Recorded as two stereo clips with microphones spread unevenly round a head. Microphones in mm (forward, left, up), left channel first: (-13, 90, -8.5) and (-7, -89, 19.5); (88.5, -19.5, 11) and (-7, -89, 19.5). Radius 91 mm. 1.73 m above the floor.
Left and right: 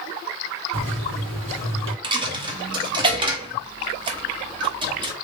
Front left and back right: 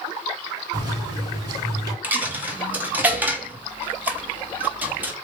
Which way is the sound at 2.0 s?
90° right.